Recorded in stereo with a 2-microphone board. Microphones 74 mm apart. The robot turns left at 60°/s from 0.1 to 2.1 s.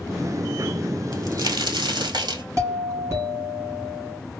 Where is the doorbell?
40° right (ahead or behind), 2.5 m.